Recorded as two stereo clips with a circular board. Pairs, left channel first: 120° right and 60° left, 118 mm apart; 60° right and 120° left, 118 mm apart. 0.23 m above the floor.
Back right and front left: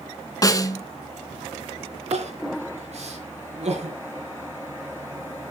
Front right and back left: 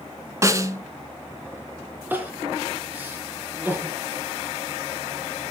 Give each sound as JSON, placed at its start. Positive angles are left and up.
{"t": 0.4, "sound": "a snare drum", "azimuth_deg": 180, "distance_m": 0.9}
{"t": 2.1, "sound": "crying", "azimuth_deg": 50, "distance_m": 4.0}